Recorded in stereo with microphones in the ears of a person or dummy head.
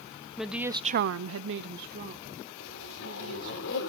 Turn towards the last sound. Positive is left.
turn(degrees=70)  # may be behind; listen again after turning